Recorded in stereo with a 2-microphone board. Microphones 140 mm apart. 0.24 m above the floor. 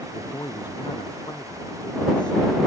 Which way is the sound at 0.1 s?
30° left (ahead or behind).